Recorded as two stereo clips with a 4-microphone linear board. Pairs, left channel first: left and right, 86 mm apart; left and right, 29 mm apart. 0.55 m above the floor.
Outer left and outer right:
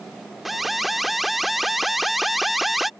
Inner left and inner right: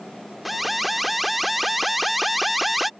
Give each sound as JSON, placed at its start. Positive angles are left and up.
{"t": 0.5, "sound": "an alarm", "side_deg": 0}